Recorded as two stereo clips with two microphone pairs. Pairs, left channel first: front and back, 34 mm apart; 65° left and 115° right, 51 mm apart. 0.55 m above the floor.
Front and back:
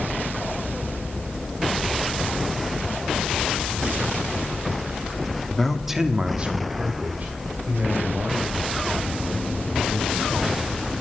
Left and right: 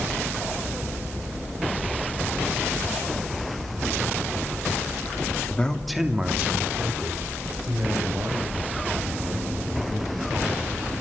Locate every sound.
5.5 s a man speaking: 65° left, 1.3 m; by 10.9 s 150° right, 7 m